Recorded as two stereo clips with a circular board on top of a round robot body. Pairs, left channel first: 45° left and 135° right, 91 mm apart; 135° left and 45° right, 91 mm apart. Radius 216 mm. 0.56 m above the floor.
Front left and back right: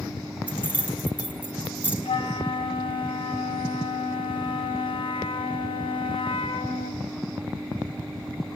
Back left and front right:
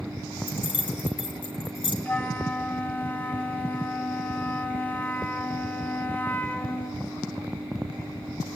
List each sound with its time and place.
0.5 s keys jangling: 155° left, 3.5 m
2.0 s a flute: 65° left, 1.3 m